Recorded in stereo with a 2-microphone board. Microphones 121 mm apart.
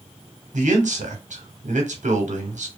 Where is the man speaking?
75° right (ahead or behind), 0.8 m.